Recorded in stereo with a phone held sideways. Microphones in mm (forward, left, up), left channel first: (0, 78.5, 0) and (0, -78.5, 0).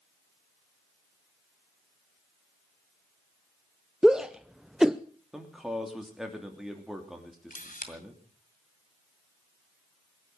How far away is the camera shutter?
About 2 m.